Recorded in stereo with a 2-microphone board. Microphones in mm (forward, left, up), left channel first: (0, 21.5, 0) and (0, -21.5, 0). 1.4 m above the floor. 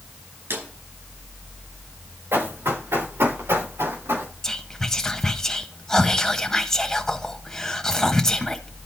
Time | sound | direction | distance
0.5 | a drawer | 70° right (ahead or behind) | 5.5 m
2.3 | running footsteps | 80° right | 7 m
4.4 | whispering | 10° left (ahead or behind) | 1.1 m